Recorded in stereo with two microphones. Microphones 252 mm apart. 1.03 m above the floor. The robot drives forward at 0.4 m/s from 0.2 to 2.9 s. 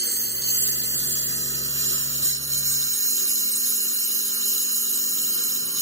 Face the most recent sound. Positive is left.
turn(degrees=-55)  # may be behind; listen again after turning